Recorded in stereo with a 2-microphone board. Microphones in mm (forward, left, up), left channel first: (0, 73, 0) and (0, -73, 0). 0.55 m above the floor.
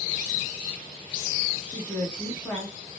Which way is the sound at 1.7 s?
10° left (ahead or behind).